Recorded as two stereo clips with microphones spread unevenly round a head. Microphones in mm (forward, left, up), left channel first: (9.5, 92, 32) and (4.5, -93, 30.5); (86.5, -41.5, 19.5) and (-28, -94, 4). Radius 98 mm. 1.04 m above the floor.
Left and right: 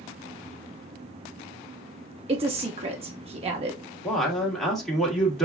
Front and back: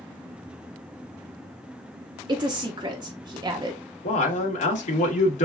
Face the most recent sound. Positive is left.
turn(degrees=0)